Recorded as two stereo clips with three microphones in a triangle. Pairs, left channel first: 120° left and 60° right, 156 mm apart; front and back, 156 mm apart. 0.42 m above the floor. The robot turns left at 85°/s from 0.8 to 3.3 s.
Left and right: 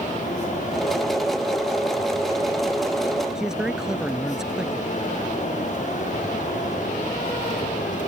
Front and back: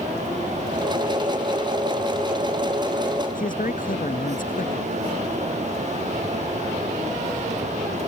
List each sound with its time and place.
3.4 s a man speaking: 25° left